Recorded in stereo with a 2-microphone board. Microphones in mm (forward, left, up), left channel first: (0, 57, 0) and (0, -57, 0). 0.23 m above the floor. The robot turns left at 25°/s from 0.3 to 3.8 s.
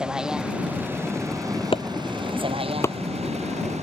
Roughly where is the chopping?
Left.